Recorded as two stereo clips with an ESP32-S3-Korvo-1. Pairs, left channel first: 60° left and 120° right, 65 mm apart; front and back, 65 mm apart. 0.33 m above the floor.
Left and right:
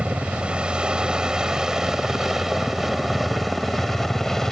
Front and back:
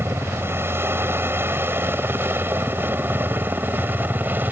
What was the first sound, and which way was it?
A helicopter, straight behind.